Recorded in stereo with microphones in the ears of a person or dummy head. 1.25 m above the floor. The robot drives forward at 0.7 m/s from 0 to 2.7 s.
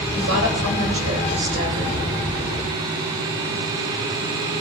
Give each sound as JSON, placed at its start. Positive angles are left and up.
{"t": 0.1, "sound": "a woman speaking", "side_deg": -65, "distance_m": 3.0}